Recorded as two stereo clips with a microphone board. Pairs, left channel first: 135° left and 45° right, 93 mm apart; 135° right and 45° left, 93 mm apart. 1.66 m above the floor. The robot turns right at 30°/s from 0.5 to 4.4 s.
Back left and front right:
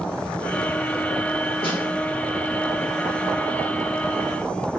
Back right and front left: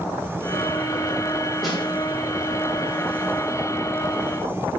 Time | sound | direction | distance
1.6 | a snare drum | 135° left | 0.9 m